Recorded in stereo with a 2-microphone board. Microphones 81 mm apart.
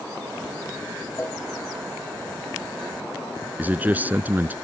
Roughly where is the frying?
No frying in this recording.